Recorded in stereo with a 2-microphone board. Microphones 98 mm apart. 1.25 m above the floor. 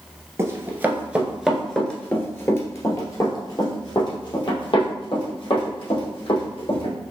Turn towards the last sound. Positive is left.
turn(degrees=70)  # may be behind; listen again after turning